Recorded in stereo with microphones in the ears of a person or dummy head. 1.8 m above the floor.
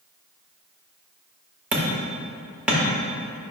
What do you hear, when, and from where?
1.7 s hammering: 5° right (ahead or behind), 1.4 m